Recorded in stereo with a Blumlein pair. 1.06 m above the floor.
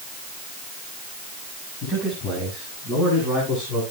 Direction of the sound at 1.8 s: 25° left.